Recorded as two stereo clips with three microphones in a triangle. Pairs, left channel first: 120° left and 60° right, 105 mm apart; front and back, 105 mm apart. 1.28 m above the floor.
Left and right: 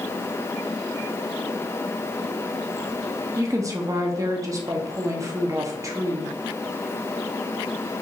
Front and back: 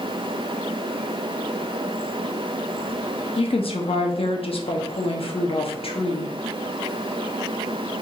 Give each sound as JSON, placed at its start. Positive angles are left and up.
{"t": 3.4, "sound": "a woman speaking", "azimuth_deg": -10, "distance_m": 0.7}